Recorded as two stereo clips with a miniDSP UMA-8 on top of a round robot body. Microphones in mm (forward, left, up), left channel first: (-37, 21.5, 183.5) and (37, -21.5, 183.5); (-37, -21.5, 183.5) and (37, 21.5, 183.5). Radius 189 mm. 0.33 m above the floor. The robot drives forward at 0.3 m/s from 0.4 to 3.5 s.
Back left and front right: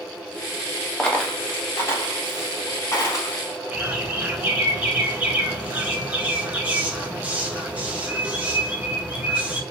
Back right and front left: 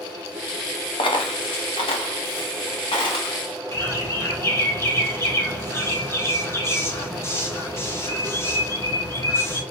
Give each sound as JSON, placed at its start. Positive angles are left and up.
{"t": 1.0, "sound": "a dropped coin", "azimuth_deg": -130, "distance_m": 0.5}
{"t": 3.7, "sound": "a bird", "azimuth_deg": -100, "distance_m": 1.2}